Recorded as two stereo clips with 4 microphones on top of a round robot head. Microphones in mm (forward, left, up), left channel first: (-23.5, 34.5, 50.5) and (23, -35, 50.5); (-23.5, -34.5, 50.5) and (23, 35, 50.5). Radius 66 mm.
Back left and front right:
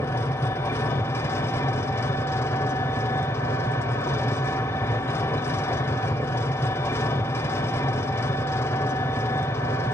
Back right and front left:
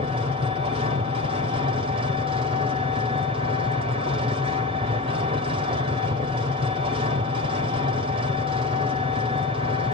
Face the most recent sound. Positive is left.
turn(degrees=65)